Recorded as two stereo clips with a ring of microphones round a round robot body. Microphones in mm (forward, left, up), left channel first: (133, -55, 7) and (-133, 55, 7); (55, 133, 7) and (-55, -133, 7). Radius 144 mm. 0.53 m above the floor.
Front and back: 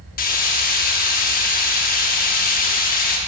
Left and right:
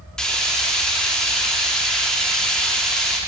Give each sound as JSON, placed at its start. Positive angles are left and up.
{"t": 0.2, "sound": "frying", "azimuth_deg": -20, "distance_m": 0.9}